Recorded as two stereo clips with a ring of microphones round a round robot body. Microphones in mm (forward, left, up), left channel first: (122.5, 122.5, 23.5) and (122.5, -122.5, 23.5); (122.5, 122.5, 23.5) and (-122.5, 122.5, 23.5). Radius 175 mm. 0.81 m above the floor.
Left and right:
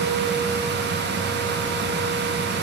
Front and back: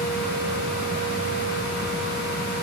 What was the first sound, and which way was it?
Only background noise.